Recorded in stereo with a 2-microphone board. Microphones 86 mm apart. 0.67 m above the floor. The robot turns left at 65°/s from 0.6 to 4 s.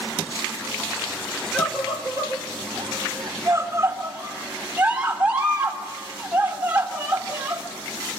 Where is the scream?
Centre (ahead or behind), 2.5 m; by 7.6 s 15° right (ahead or behind), 2.5 m.